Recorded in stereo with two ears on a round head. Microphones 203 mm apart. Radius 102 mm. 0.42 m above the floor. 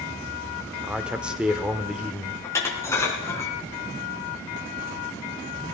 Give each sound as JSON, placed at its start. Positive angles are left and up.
{"t": 0.8, "sound": "a man speaking", "side_deg": -5, "distance_m": 1.3}
{"t": 2.4, "sound": "dishes clattering", "side_deg": 15, "distance_m": 3.5}